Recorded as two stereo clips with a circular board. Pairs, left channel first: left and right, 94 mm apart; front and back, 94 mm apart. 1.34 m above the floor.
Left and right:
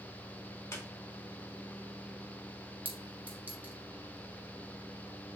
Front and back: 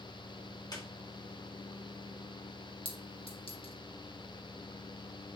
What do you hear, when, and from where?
0.7 s a squeak: 35° left, 2 m
2.9 s a clink: 20° right, 1.8 m